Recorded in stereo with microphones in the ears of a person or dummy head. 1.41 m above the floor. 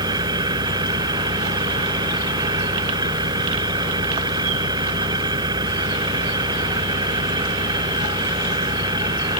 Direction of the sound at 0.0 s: 20° right (ahead or behind).